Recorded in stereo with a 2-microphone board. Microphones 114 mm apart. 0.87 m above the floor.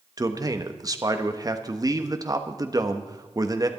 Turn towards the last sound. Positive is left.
turn(degrees=-30)  # may be behind; listen again after turning